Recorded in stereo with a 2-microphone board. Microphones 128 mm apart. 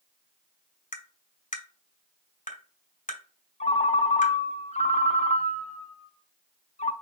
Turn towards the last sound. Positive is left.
turn(degrees=65)  # may be behind; listen again after turning